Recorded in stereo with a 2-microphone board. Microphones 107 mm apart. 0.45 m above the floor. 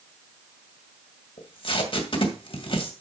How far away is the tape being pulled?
About 2.0 m.